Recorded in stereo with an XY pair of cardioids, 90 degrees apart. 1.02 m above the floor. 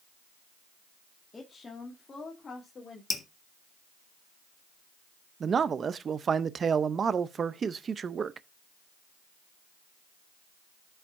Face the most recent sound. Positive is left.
turn(degrees=-50)